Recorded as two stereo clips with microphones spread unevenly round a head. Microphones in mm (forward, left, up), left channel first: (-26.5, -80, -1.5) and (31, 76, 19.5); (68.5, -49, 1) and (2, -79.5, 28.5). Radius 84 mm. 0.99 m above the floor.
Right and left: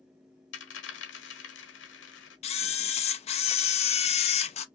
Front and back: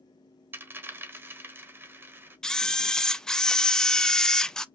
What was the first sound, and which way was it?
A dropped coin, 115° right.